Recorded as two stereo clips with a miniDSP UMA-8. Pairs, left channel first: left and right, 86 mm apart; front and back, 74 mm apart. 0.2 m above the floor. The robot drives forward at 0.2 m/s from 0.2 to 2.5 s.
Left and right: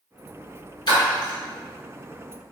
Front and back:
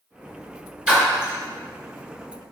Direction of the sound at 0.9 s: 105° left.